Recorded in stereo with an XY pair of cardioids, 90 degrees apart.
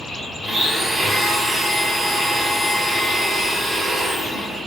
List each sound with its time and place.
0.4 s a blender: 35° right, 2 m